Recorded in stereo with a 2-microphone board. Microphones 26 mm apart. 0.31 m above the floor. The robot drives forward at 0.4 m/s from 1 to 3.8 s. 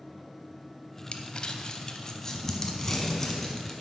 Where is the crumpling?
50° left (ahead or behind), 0.6 m; by 3.7 s 20° left (ahead or behind), 1.4 m.